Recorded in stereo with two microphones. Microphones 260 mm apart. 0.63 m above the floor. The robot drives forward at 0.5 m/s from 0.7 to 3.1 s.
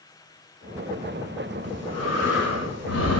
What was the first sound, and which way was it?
Breathing, 75° left (ahead or behind).